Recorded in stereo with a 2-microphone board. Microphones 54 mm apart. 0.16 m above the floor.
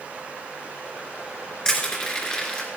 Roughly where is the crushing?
Centre.